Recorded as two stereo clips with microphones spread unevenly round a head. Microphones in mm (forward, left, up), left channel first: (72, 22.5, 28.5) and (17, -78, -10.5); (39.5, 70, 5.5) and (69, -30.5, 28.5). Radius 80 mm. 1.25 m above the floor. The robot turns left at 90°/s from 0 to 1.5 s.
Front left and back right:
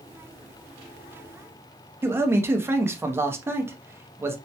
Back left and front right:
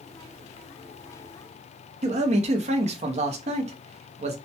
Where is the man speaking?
65° right, 0.6 m.